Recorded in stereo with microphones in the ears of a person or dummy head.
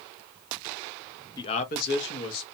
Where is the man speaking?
20° left (ahead or behind), 0.6 m; by 2.4 s 75° left (ahead or behind), 1.2 m.